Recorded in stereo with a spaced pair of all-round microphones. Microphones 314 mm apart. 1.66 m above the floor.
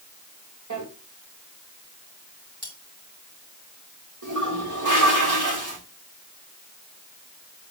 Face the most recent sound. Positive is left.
turn(degrees=-75)  # may be behind; listen again after turning